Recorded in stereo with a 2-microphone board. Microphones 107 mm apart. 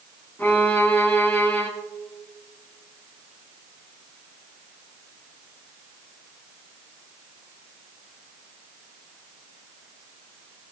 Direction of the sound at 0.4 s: 15° left (ahead or behind).